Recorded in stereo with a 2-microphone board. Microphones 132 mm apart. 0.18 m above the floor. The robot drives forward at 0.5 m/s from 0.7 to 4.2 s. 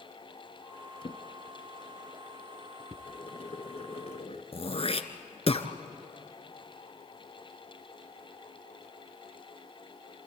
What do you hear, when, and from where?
1.0 s a drawer: 45° left (ahead or behind), 1.0 m; by 3.0 s 25° left (ahead or behind), 1.7 m
3.1 s boiling: 45° left (ahead or behind), 1.9 m; by 4.4 s 50° left (ahead or behind), 1.8 m
4.5 s throat clearing: 50° left (ahead or behind), 1.1 m